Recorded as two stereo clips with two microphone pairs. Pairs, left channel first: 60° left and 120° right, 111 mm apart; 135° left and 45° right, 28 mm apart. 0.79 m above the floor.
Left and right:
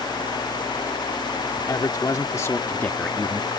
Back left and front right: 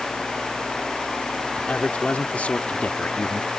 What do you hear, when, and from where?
1.6 s a man speaking: 105° left; by 3.5 s 150° left